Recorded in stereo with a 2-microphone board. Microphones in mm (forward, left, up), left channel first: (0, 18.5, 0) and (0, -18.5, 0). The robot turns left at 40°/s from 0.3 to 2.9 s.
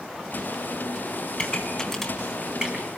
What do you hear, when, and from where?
1.4 s a pop: 30° left (ahead or behind), 3.5 m; by 2.9 s 30° right (ahead or behind), 3.5 m